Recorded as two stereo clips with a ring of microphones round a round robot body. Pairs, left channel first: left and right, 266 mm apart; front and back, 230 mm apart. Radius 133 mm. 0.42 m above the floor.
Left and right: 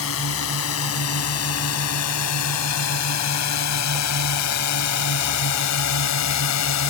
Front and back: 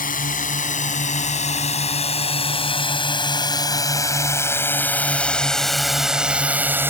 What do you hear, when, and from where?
0.0 s a drone: 50° left; by 6.9 s 100° left